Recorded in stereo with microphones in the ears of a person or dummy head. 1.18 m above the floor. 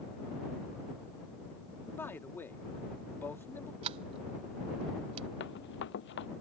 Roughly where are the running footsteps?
Left.